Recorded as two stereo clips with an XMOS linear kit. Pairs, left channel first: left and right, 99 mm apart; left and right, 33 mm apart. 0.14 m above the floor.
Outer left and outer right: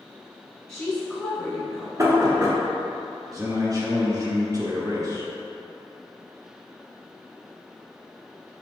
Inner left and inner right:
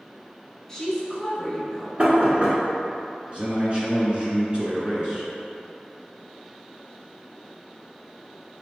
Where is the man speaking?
35° right (ahead or behind), 1.4 m.